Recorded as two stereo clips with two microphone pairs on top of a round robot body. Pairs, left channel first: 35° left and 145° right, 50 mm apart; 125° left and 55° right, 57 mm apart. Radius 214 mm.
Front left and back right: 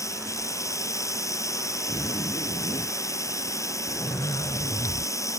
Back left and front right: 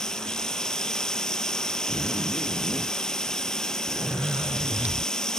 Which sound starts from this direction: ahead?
A zipper, at 1.9 s.